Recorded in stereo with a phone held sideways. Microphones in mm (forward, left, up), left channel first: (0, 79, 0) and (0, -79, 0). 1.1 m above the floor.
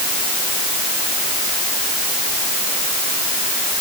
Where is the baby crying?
I don't hear a baby crying.